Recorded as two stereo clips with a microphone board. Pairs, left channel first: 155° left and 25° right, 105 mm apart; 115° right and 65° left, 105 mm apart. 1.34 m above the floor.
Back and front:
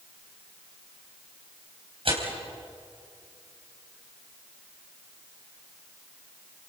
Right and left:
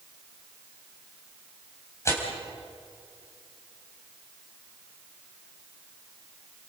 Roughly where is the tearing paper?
Ahead right.